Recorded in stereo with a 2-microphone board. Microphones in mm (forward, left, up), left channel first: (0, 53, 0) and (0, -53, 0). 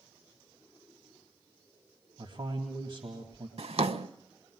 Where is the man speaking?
55° right (ahead or behind), 2 m.